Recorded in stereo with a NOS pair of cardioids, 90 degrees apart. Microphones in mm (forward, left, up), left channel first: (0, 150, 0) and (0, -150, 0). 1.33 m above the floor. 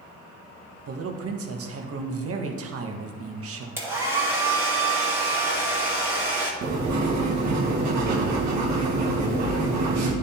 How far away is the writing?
About 1.5 m.